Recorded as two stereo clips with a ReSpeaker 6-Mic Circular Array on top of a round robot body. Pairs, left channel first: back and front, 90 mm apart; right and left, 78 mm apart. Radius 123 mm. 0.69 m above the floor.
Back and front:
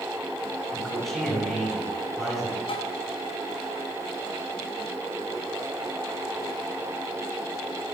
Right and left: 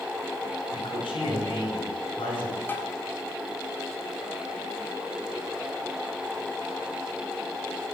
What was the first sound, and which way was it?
A man speaking, 95° right.